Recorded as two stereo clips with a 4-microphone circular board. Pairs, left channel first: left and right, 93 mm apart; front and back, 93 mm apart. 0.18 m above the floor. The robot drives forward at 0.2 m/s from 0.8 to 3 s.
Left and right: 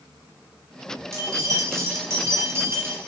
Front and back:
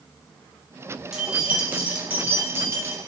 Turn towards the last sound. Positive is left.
turn(degrees=-135)